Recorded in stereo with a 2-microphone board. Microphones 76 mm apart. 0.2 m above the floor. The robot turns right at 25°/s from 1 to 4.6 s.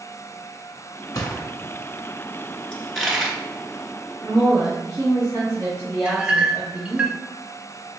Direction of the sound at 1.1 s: 60° left (ahead or behind).